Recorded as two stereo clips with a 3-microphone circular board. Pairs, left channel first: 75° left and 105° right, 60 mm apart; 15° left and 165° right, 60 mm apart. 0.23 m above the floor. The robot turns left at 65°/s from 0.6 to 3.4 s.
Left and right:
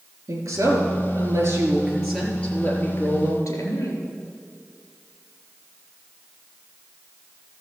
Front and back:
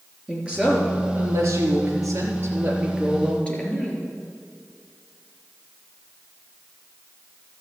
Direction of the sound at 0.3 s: 95° right.